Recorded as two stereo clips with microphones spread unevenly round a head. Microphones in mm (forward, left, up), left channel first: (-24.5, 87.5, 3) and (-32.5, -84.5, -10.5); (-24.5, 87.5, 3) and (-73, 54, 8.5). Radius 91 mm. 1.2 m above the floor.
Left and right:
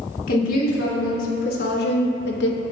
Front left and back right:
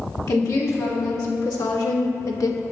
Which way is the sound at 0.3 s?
45° left.